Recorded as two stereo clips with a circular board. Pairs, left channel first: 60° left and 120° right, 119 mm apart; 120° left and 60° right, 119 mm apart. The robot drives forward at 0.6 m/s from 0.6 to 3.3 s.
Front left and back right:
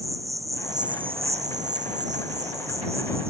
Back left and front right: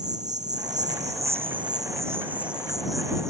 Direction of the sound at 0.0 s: 55° right.